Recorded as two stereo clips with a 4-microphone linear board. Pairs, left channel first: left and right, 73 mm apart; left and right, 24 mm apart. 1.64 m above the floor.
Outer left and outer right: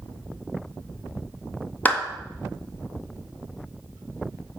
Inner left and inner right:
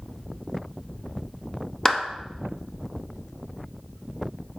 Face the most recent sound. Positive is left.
turn(degrees=20)  # may be behind; listen again after turning